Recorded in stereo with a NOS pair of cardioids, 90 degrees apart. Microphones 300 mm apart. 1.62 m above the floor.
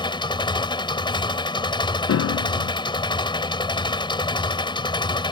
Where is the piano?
55° left.